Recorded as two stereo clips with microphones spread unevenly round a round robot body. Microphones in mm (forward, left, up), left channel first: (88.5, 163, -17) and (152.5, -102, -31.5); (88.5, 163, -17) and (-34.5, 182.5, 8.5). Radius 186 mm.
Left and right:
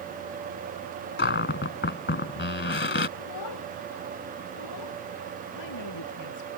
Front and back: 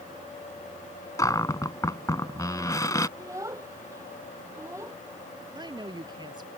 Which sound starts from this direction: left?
A child speaking, at 3.2 s.